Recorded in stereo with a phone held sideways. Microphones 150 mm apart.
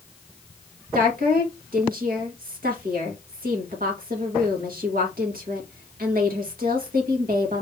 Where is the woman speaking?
75° right (ahead or behind), 1.8 m.